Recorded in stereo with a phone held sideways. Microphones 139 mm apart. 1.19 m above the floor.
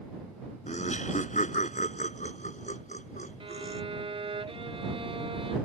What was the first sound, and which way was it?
Laughter, 55° left (ahead or behind).